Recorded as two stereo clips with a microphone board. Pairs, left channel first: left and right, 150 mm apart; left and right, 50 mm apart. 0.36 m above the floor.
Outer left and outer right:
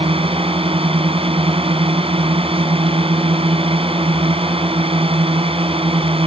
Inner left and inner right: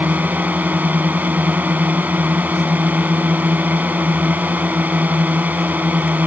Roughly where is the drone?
Right.